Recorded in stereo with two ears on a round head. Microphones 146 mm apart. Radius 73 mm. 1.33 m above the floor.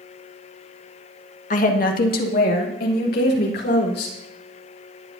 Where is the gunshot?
I don't hear a gunshot.